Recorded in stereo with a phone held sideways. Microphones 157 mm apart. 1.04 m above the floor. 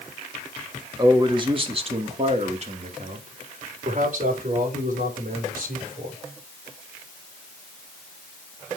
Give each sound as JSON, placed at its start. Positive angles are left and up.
{"t": 1.0, "sound": "a man speaking", "side_deg": -25, "distance_m": 1.5}